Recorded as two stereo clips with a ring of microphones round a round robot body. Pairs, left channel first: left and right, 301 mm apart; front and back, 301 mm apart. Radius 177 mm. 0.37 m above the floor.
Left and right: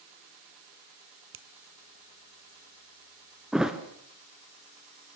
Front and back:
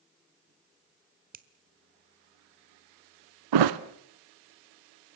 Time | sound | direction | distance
1.3 | a finger snap | 125° right | 1.3 m
3.5 | a thud | straight behind | 1.0 m